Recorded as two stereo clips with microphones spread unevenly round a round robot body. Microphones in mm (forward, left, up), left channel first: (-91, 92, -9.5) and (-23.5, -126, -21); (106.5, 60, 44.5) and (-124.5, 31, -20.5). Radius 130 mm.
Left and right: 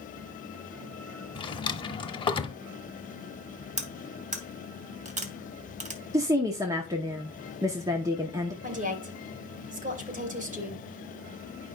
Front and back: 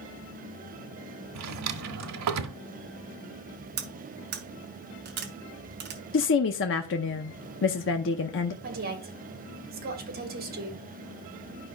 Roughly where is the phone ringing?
I don't hear a phone ringing.